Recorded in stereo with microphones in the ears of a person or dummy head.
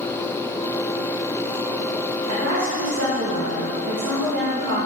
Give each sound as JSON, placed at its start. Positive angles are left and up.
{"t": 2.3, "sound": "a woman speaking", "side_deg": -75, "distance_m": 2.0}